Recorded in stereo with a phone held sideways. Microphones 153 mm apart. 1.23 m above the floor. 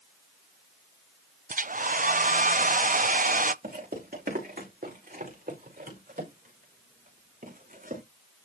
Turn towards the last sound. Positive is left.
turn(degrees=-65)  # may be behind; listen again after turning